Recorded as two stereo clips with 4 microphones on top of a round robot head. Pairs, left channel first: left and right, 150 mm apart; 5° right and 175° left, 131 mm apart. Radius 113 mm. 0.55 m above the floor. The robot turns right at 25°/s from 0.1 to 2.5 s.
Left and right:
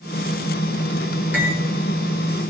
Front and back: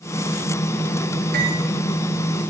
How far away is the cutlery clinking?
About 5 m.